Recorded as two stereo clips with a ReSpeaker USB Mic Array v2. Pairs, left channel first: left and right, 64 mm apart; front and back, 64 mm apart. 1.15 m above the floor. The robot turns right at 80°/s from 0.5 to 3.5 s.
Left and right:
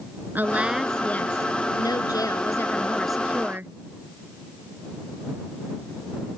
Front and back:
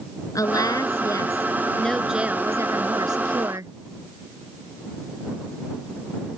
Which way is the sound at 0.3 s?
30° right.